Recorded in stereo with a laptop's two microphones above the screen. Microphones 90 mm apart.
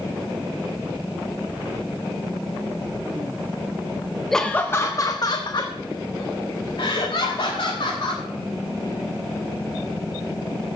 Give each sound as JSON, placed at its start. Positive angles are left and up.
{"t": 4.3, "sound": "laughter", "side_deg": 0, "distance_m": 0.6}